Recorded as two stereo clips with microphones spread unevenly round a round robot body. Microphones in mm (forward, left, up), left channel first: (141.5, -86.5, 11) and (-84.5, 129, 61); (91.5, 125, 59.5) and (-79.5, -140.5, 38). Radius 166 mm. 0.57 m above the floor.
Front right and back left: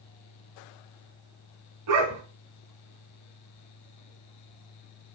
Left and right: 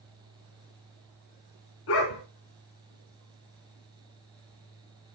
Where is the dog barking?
105° left, 3.5 m.